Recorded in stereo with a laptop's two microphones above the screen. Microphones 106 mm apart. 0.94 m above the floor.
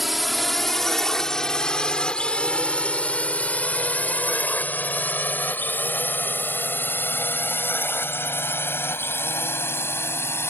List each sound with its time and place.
0.0 s a drone: centre (ahead or behind); by 10.5 s 20° left (ahead or behind)